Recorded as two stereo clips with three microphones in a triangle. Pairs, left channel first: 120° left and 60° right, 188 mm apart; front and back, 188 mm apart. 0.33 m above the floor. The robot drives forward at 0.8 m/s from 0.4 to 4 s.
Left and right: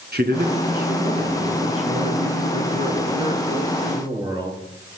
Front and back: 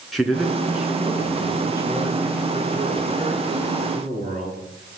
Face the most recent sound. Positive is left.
turn(degrees=-130)